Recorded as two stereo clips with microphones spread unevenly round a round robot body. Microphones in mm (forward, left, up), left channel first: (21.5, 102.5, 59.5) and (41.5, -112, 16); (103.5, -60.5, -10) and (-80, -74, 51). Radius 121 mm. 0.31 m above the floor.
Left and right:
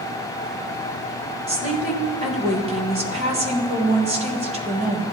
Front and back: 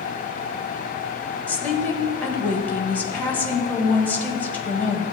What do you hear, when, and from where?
1.5 s a woman speaking: 55° right, 1.7 m